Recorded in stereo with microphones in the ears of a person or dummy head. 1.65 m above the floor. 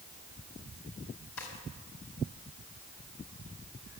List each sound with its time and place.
1.4 s a drawer: 80° left, 4.5 m